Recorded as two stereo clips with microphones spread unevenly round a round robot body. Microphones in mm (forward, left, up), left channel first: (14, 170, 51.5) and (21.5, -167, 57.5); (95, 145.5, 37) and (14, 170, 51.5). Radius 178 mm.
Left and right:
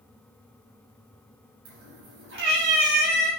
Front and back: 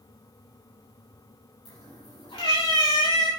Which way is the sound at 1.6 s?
40° right.